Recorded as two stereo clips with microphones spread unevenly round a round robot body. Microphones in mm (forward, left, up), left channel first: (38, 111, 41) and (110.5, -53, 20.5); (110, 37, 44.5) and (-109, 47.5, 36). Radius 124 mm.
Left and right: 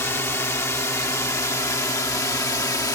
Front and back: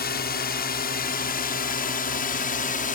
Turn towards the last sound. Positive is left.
turn(degrees=45)